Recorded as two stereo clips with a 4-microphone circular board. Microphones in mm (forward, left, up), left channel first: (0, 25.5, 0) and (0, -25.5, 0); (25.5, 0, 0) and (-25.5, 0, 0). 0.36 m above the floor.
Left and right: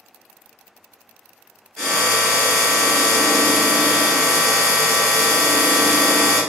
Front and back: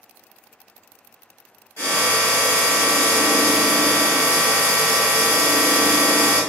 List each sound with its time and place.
1.8 s a drill: 15° left, 1.1 m